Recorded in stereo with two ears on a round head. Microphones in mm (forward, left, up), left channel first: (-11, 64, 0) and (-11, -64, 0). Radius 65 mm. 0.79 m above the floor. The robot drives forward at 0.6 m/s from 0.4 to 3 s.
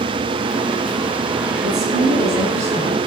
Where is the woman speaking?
55° right (ahead or behind), 8 m; by 3.0 s 50° right (ahead or behind), 8.5 m.